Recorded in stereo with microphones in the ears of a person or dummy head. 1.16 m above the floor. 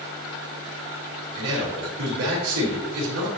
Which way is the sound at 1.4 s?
85° right.